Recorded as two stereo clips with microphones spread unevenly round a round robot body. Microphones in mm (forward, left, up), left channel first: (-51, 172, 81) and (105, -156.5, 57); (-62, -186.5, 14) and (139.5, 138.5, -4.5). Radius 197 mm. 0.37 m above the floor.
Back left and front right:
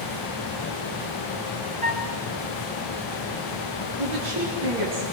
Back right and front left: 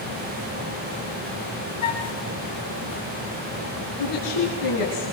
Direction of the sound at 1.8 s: 135° right.